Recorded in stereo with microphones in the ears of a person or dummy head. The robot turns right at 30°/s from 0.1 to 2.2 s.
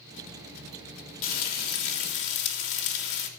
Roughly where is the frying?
Left.